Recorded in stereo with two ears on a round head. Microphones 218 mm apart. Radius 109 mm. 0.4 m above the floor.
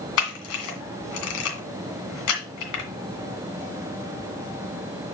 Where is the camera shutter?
65° left (ahead or behind), 2 m.